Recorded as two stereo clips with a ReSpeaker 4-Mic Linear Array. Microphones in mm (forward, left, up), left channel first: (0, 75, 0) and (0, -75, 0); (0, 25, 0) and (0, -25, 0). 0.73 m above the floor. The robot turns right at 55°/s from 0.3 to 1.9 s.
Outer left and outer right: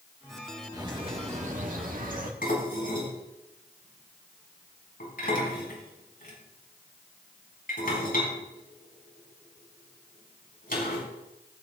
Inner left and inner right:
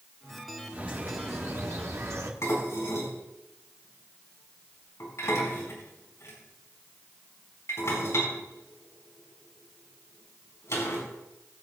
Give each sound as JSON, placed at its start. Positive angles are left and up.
{"t": 0.7, "sound": "a bird", "azimuth_deg": -155, "distance_m": 1.6}
{"t": 2.4, "sound": "dishes clattering", "side_deg": 65, "distance_m": 4.5}